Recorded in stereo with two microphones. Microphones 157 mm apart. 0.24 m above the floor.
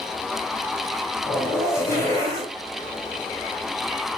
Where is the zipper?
15° left (ahead or behind), 3.5 m.